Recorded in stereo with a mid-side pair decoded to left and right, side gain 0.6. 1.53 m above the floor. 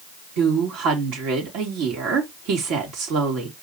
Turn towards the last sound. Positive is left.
turn(degrees=-70)